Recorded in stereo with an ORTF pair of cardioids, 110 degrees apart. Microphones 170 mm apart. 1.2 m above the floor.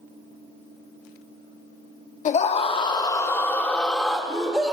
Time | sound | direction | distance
2.2 | a scream | 45° left | 1.2 m